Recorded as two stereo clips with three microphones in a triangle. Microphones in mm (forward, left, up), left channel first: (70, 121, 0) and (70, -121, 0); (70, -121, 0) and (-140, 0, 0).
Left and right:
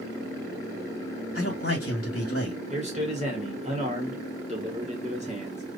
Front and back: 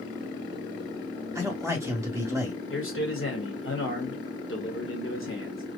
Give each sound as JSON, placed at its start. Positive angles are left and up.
{"t": 1.4, "sound": "a man speaking", "azimuth_deg": 70, "distance_m": 1.6}
{"t": 2.7, "sound": "a man speaking", "azimuth_deg": -35, "distance_m": 2.0}